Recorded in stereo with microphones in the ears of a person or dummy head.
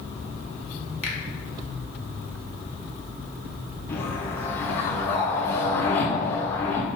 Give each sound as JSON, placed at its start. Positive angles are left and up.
{"t": 1.0, "sound": "a finger snap", "side_deg": 5, "distance_m": 0.9}
{"t": 3.9, "sound": "a whoosh", "side_deg": 10, "distance_m": 0.5}